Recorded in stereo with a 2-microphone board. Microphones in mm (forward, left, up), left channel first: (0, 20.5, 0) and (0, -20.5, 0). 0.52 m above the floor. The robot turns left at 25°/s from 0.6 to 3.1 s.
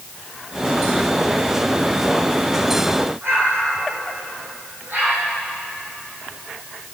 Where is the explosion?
65° right (ahead or behind), 8.5 m.